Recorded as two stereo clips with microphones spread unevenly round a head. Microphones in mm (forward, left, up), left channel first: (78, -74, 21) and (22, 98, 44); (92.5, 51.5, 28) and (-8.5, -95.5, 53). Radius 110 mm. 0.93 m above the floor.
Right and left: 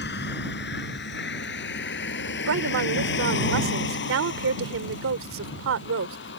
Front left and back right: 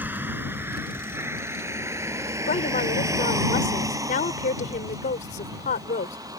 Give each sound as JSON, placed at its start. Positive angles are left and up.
{"t": 0.0, "sound": "a vehicle", "azimuth_deg": -45}
{"t": 2.5, "sound": "a woman speaking", "azimuth_deg": 110}